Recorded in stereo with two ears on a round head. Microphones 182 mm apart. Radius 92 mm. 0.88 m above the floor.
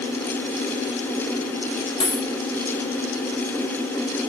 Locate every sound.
2.0 s a dropped coin: 25° left (ahead or behind), 4 m